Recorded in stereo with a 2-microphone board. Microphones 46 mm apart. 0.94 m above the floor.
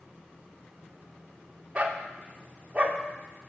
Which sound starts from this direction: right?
A dog barking, at 1.8 s.